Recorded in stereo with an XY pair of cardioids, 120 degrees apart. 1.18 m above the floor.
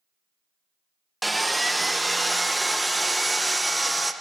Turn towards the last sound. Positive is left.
turn(degrees=-5)